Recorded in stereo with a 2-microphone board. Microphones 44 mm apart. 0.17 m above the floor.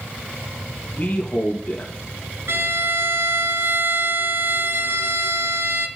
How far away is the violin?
About 1.5 m.